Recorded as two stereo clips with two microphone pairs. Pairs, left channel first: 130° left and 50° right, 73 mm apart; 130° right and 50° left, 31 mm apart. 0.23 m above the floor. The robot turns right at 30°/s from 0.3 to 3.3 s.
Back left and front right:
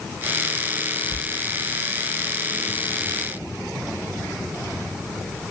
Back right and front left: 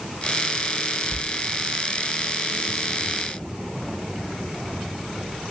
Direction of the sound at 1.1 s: 120° right.